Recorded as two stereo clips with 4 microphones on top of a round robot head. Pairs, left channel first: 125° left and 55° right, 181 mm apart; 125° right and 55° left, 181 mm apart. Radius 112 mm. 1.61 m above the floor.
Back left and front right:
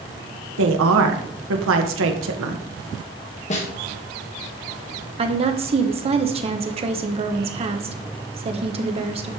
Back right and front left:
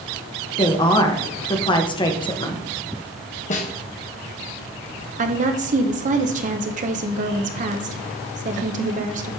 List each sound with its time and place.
0.6 s a woman speaking: 60° right, 1.7 m
3.5 s a snare drum: straight behind, 1.6 m
5.2 s a woman speaking: 5° left, 1.2 m